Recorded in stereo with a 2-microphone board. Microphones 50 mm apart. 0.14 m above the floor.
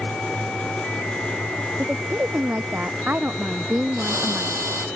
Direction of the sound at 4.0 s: 70° right (ahead or behind).